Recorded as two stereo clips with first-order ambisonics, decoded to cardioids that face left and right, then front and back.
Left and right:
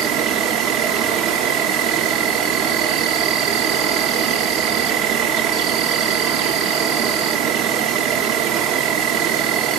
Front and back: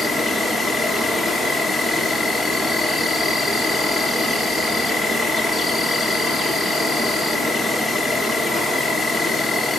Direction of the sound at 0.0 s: 85° right.